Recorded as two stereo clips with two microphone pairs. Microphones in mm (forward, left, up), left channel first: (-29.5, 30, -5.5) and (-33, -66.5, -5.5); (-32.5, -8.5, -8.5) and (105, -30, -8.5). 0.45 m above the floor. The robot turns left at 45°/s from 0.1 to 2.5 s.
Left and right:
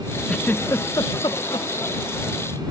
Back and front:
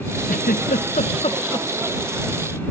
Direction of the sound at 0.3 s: 170° left.